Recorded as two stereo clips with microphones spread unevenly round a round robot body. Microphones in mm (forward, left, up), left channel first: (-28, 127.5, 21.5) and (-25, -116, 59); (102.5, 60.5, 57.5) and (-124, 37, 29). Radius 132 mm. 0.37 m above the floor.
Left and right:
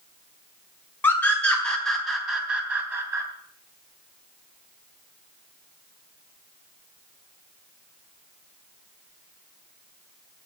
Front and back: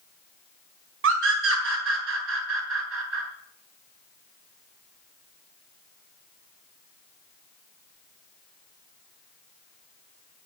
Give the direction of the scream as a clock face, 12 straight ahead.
6 o'clock.